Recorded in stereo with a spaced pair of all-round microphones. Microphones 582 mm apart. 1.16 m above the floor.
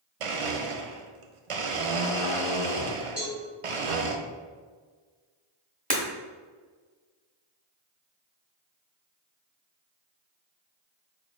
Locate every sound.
0.2 s a blender: 65° right (ahead or behind), 0.5 m
3.2 s a cowbell: 25° left (ahead or behind), 1.8 m
5.9 s breaking glass: 15° right (ahead or behind), 1.0 m